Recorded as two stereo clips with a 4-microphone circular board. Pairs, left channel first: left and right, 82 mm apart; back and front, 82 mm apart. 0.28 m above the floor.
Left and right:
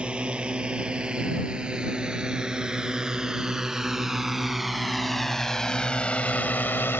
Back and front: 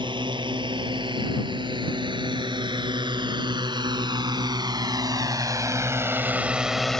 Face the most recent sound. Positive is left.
turn(degrees=100)